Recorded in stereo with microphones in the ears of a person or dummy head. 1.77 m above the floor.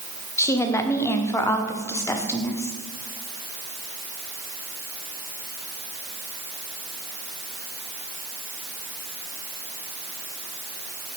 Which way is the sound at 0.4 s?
15° left (ahead or behind).